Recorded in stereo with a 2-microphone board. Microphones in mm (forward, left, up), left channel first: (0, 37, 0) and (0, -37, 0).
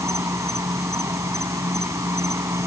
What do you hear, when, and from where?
0.0 s an insect: 40° right (ahead or behind)